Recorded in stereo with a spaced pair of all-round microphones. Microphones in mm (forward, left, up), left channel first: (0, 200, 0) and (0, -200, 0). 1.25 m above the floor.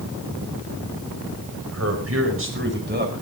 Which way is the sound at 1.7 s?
40° right (ahead or behind).